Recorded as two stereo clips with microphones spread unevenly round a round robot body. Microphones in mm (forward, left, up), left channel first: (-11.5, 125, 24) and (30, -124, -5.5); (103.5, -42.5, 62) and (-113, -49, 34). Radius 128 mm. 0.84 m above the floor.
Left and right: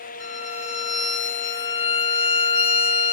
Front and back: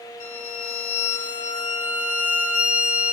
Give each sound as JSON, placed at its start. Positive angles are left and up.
{"t": 0.2, "sound": "a violin", "azimuth_deg": 60, "distance_m": 1.5}